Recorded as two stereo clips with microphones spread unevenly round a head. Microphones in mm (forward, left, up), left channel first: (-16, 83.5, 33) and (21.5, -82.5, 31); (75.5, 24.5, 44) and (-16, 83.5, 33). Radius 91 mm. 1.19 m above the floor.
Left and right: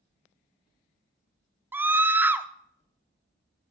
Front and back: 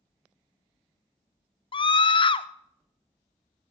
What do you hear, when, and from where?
1.7 s a scream: straight ahead, 0.8 m